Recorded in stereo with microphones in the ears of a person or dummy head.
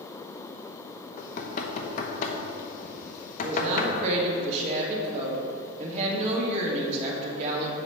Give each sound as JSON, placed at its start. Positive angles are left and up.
{"t": 1.2, "sound": "knocking", "side_deg": 40, "distance_m": 0.9}
{"t": 3.4, "sound": "a woman speaking", "side_deg": -40, "distance_m": 2.0}